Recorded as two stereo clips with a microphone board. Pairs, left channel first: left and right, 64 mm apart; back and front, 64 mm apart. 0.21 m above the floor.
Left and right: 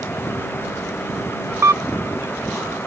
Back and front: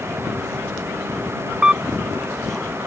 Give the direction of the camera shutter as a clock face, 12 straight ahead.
2 o'clock.